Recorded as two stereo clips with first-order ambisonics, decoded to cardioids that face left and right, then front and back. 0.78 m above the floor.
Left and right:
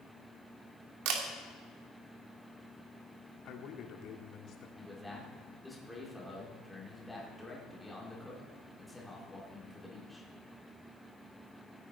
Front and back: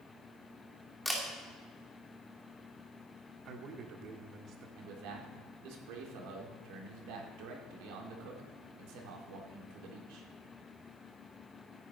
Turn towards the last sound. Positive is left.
turn(degrees=180)